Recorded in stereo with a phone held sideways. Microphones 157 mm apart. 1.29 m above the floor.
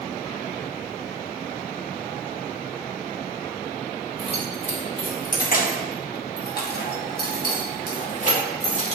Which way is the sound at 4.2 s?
35° left (ahead or behind).